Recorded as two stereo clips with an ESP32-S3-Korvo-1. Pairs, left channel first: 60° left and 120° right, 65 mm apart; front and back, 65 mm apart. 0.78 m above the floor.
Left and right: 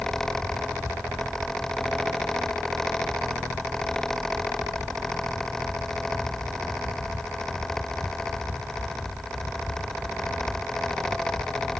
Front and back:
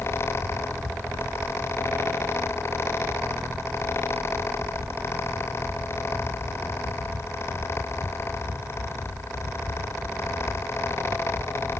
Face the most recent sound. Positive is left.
No sound to turn to.